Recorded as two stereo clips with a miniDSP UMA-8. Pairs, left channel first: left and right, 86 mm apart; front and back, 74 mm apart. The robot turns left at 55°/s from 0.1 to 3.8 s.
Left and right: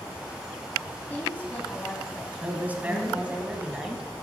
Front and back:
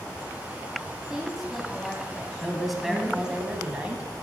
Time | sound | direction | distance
1.1 | a woman speaking | 115° left | 1.1 m
2.4 | a man speaking | 80° right | 1.1 m